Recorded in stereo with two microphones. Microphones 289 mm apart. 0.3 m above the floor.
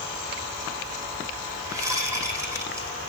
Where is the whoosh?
10° right (ahead or behind), 4 m.